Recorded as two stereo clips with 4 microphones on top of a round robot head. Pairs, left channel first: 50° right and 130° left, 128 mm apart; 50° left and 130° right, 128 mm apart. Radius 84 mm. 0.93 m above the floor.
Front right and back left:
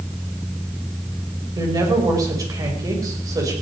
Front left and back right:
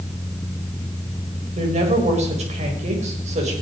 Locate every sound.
1.6 s a woman speaking: 165° right, 5.5 m